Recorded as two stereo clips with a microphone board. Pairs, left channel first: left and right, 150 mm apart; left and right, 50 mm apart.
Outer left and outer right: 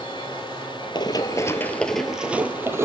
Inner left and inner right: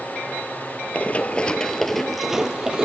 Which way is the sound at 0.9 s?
30° left (ahead or behind).